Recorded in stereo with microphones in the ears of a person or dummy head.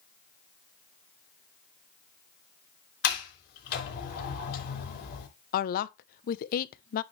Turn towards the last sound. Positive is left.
turn(degrees=50)  # may be behind; listen again after turning